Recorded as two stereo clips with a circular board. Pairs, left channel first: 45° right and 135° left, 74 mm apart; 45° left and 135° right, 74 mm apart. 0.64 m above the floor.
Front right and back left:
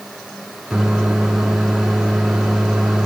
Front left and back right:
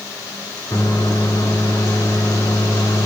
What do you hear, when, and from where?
0.7 s a microwave: 45° left, 1.2 m